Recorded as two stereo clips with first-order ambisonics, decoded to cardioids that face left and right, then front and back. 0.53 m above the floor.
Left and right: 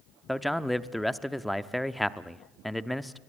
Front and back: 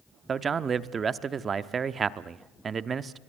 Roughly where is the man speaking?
Behind.